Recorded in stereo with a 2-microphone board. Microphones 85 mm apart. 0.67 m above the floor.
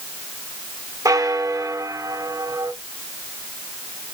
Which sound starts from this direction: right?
A bell, at 1.1 s.